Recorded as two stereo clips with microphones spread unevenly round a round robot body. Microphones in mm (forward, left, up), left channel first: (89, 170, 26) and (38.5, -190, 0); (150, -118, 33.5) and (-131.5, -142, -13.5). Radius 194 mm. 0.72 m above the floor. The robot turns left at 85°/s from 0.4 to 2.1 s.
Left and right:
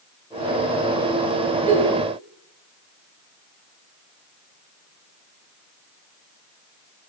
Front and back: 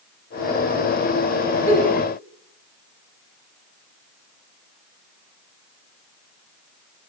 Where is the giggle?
80° right, 1.2 m; by 1.9 s 105° right, 1.2 m.